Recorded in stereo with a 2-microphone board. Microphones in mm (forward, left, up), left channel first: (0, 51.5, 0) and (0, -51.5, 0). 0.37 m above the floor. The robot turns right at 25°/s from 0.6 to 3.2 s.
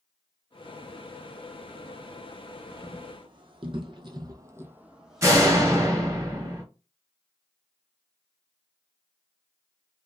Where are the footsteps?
35° right (ahead or behind), 1.0 m; by 5.9 s 10° left (ahead or behind), 1.0 m.